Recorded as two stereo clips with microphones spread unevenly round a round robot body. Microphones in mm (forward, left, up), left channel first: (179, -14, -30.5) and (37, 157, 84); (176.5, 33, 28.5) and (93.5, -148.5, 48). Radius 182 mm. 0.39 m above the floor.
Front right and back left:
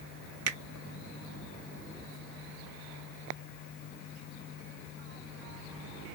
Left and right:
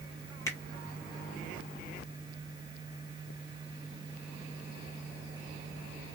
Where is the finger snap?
125° left, 0.7 m.